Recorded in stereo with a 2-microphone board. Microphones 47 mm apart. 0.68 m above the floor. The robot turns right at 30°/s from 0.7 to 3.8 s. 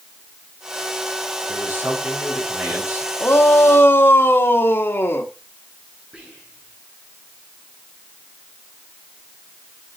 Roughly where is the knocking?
No knocking in this recording.